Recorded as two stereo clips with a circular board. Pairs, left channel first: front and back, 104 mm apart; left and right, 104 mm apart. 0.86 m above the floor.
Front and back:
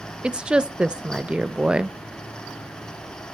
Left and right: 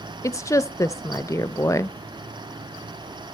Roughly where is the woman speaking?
Left.